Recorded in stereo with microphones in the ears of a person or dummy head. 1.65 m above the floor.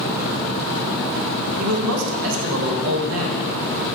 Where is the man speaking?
75° right (ahead or behind), 1.7 m.